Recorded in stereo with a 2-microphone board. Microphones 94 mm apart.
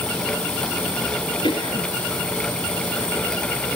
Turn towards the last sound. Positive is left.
turn(degrees=65)  # may be behind; listen again after turning